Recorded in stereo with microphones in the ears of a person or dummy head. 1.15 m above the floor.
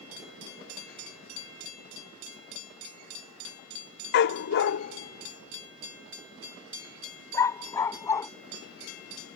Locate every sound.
4.1 s a dog barking: 60° left (ahead or behind); by 8.3 s 15° left (ahead or behind)